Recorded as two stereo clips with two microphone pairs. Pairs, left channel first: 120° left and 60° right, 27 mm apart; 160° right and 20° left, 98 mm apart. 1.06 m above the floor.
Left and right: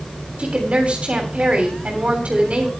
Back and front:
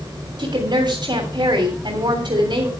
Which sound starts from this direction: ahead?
A woman speaking, at 0.4 s.